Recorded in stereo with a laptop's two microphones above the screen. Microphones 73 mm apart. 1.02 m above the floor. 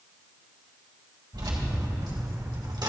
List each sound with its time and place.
1.3 s keys jangling: 85° right, 3.5 m; by 2.9 s 65° right (ahead or behind), 1.5 m